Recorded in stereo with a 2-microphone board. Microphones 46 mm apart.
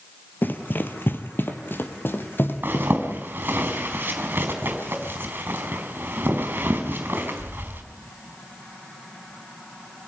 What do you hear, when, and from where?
0.4 s running footsteps: 45° left (ahead or behind), 1.6 m; by 3.6 s 50° left (ahead or behind), 3.5 m
2.6 s a zipper: 50° right (ahead or behind), 4 m